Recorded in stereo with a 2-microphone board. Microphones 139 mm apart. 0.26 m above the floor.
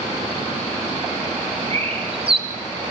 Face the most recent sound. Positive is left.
turn(degrees=-45)  # may be behind; listen again after turning